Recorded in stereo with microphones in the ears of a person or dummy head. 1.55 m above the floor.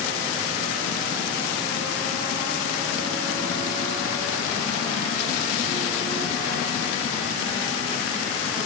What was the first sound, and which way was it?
Only background noise.